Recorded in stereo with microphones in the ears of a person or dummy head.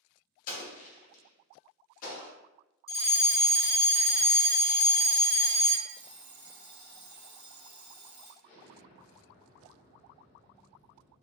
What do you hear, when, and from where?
0.5 s an explosion: 45° left (ahead or behind), 1.0 m
2.9 s a fire alarm: 20° left (ahead or behind), 0.9 m
5.9 s an alarm clock: 20° right (ahead or behind), 1.5 m
8.4 s an explosion: 35° left (ahead or behind), 0.8 m